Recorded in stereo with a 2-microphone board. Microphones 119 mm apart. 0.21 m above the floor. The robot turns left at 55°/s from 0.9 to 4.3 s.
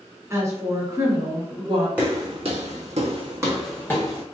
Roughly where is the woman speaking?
Ahead right.